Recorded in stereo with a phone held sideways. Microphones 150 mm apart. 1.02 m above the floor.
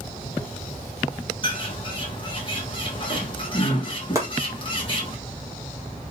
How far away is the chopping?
About 1.6 m.